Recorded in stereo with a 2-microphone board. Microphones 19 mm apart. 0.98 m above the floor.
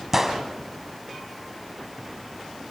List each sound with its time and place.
0.1 s a gunshot: 20° right (ahead or behind), 1.8 m